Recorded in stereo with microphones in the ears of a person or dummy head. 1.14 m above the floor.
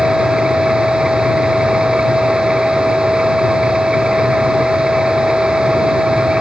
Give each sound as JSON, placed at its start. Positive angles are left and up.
{"t": 0.0, "sound": "a machine running", "side_deg": -5}